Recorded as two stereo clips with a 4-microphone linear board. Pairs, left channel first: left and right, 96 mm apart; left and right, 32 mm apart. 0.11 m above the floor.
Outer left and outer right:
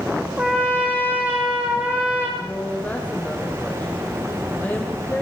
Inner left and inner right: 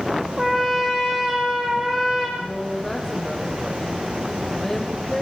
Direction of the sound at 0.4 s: 15° right (ahead or behind).